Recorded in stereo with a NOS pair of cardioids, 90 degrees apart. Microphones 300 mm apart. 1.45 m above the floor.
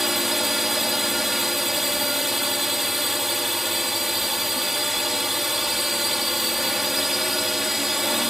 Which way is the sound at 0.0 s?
Straight ahead.